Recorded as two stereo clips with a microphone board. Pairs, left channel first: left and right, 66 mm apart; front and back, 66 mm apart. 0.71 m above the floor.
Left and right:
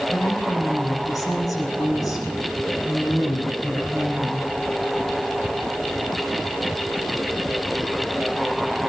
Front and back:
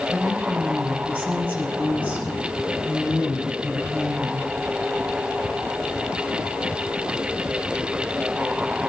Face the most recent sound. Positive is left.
turn(degrees=115)